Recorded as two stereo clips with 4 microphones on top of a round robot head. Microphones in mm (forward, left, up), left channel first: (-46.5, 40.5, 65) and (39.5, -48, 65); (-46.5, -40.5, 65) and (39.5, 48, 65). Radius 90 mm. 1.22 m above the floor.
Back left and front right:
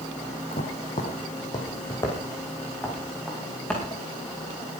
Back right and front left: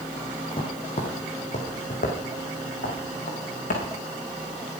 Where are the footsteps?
175° left, 3.5 m; by 3.8 s 145° right, 6.5 m.